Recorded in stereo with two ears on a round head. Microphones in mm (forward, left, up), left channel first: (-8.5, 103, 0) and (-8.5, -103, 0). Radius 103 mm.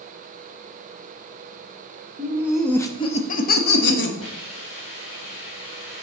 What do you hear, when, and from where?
2.2 s laughter: 20° right (ahead or behind), 0.9 m; by 4.1 s 55° left (ahead or behind), 1.5 m
4.2 s a hiss: 65° left (ahead or behind), 3 m